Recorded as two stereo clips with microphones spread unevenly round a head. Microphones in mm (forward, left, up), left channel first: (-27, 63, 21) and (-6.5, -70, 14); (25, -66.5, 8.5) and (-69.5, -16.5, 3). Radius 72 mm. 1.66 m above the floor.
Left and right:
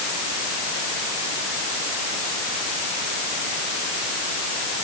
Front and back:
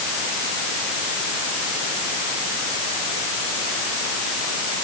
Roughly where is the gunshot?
I don't hear a gunshot.